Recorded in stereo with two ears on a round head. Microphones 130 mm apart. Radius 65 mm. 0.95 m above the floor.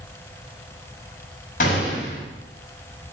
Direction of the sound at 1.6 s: 60° left (ahead or behind).